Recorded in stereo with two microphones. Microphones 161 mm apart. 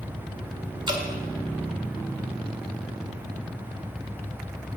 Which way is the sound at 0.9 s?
30° right (ahead or behind).